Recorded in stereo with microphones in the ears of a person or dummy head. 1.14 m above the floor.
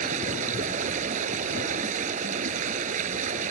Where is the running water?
50° right (ahead or behind).